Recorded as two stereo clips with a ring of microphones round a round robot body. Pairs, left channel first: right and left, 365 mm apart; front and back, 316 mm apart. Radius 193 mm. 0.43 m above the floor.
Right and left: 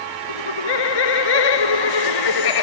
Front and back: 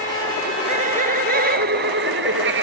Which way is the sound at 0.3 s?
105° right.